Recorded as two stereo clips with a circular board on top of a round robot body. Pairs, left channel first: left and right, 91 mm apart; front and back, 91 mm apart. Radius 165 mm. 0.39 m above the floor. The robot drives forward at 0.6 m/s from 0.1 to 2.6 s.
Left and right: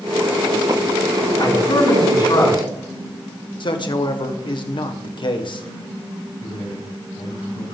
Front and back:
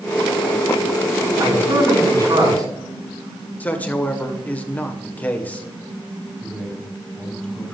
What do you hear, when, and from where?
1.4 s a man speaking: 130° left, 8.5 m; by 2.6 s 135° left, 9 m
3.6 s a man speaking: 70° left, 2.0 m
6.4 s a man speaking: 80° left, 5.5 m